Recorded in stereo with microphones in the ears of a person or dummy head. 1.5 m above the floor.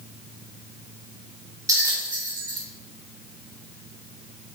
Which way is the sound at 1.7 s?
15° right (ahead or behind).